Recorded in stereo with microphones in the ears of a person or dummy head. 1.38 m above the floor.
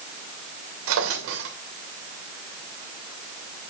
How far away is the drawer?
About 2.5 m.